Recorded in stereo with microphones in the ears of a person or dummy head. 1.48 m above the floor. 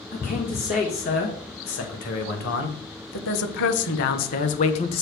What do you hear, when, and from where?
0.1 s a man speaking: 40° left (ahead or behind), 2 m; by 5.0 s 30° left (ahead or behind), 0.9 m